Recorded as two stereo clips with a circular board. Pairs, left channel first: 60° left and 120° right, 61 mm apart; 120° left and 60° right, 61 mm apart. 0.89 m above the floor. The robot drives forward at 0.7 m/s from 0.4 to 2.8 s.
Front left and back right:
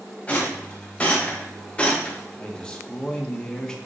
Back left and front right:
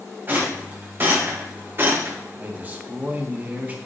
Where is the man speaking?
10° right, 1.3 m.